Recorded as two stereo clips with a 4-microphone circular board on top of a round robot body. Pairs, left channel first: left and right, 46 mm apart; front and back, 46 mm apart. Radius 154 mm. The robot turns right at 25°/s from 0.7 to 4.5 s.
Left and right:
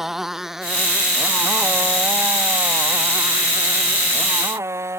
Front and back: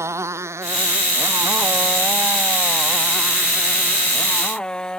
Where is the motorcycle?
170° right; by 5.0 s 70° right.